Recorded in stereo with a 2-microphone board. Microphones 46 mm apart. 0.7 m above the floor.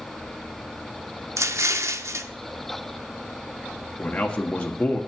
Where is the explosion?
80° right, 0.7 m.